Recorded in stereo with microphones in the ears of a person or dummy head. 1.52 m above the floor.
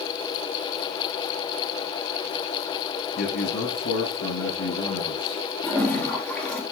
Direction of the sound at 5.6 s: 10° left (ahead or behind).